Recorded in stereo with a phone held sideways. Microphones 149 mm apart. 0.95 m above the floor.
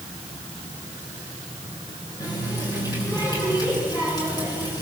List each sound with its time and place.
2.2 s a running tap: 25° left (ahead or behind), 8.5 m